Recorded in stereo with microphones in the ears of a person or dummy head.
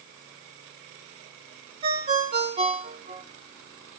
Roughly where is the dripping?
I don't hear dripping.